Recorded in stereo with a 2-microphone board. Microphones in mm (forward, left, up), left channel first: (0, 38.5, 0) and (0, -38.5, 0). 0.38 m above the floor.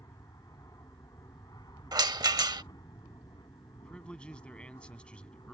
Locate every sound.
0.0 s an aircraft: 50° left (ahead or behind); by 5.5 s 65° left (ahead or behind)
1.9 s a rattle: 65° right (ahead or behind)
3.7 s a man speaking: 15° left (ahead or behind)